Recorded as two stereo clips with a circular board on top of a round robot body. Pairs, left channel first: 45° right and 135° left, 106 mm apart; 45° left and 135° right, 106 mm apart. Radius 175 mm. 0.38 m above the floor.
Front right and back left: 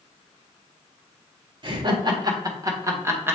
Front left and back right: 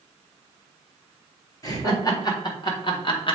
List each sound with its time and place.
1.6 s laughter: 100° left, 2.5 m; by 3.4 s 70° left, 1.9 m